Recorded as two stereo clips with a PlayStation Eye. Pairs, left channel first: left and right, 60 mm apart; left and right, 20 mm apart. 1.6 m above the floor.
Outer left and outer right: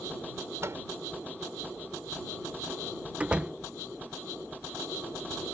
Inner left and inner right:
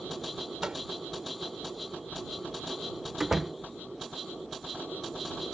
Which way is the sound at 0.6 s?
55° right (ahead or behind).